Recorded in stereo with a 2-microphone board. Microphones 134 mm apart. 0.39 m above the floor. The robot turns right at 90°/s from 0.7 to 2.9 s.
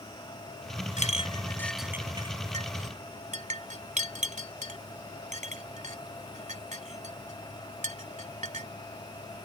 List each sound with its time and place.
1.0 s a clink: 70° left (ahead or behind); by 8.7 s 70° right (ahead or behind)